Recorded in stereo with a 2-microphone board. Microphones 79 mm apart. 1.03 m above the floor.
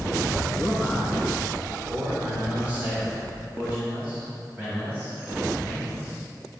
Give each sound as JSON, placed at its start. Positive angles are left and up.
{"t": 0.6, "sound": "a man speaking", "side_deg": 0, "distance_m": 1.6}